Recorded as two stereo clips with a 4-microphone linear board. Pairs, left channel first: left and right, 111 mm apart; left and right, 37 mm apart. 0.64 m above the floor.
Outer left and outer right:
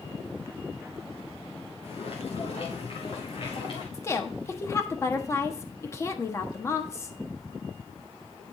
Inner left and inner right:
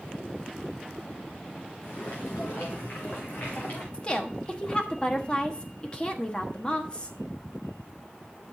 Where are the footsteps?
65° left (ahead or behind), 4.5 m; by 3.8 s 50° left (ahead or behind), 4 m.